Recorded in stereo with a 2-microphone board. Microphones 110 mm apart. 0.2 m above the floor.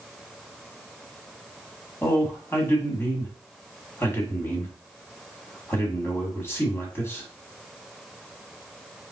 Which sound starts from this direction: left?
A man speaking, at 2.0 s.